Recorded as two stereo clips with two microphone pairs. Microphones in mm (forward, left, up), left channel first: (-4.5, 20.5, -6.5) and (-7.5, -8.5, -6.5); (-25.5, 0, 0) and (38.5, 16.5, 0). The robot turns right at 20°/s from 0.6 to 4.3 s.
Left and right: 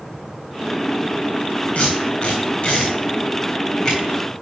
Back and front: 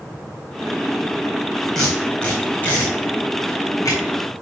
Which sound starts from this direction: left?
Tape being pulled, at 1.8 s.